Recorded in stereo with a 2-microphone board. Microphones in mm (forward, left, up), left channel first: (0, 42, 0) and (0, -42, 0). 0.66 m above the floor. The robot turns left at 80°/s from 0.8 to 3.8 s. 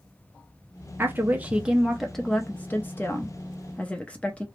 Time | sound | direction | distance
1.0 | a woman speaking | 25° right (ahead or behind) | 0.5 m